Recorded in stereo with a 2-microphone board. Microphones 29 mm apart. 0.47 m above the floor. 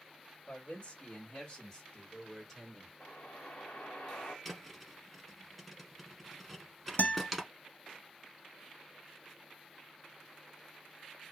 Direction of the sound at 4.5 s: 5° left (ahead or behind).